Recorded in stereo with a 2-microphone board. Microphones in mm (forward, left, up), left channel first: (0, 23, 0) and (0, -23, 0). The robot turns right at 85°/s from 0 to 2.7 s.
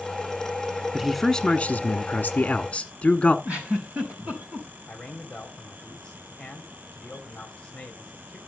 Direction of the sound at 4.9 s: 15° left (ahead or behind).